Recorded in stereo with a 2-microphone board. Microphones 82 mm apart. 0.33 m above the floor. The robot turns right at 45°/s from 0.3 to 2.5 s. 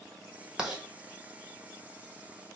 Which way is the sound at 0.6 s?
10° right (ahead or behind).